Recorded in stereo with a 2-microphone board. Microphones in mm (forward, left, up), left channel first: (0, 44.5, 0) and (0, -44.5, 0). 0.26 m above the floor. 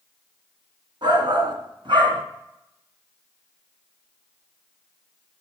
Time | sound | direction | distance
1.0 | a shout | 60° right (ahead or behind) | 3 m